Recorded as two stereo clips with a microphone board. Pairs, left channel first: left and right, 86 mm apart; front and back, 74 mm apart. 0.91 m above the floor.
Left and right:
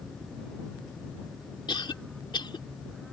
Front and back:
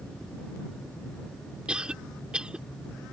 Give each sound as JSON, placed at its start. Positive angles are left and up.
{"t": 1.7, "sound": "a cough", "azimuth_deg": 105}